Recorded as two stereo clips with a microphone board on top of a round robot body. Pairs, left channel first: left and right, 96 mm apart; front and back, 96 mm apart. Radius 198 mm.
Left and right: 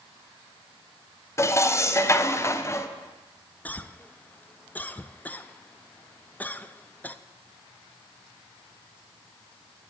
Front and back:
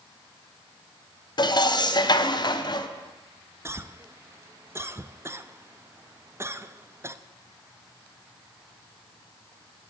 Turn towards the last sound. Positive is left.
turn(degrees=150)